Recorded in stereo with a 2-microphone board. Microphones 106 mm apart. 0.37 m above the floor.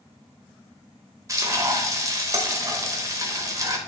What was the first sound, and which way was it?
Frying, 30° right (ahead or behind).